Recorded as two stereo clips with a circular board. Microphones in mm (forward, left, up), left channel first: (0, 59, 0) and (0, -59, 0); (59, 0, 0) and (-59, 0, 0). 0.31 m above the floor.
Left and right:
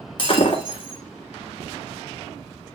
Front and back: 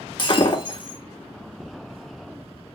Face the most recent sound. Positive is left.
turn(degrees=45)